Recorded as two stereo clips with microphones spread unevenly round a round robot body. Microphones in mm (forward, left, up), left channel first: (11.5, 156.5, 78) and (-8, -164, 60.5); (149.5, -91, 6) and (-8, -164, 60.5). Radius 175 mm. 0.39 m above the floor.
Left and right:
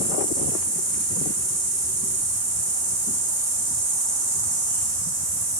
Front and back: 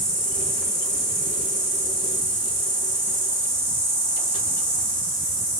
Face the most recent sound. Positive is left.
turn(degrees=-60)